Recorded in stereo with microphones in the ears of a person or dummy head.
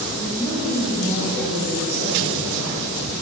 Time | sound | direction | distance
0.2 | a woman speaking | 5° left (ahead or behind) | 1.2 m